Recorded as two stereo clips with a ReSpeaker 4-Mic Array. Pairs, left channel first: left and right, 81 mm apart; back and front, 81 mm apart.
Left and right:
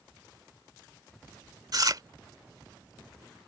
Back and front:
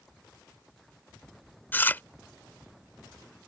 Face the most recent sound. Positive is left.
turn(degrees=-115)